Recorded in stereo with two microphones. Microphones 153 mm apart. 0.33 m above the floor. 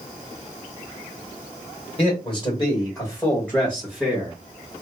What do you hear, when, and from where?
2.0 s a man speaking: 40° left (ahead or behind), 1.7 m; by 4.3 s 10° right (ahead or behind), 1.4 m